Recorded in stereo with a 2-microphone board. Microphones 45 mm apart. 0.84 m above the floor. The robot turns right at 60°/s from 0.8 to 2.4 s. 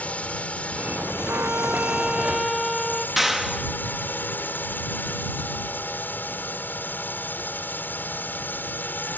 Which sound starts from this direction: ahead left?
A drone, at 0.0 s.